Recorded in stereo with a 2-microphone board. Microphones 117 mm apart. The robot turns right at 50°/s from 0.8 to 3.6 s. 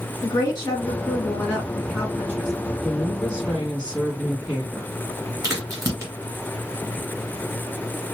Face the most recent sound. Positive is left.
turn(degrees=-25)  # may be behind; listen again after turning